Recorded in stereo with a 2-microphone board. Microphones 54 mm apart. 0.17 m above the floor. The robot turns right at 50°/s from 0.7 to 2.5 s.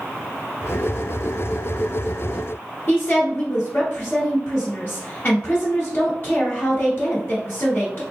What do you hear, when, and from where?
2.9 s a woman speaking: 40° left (ahead or behind), 1.5 m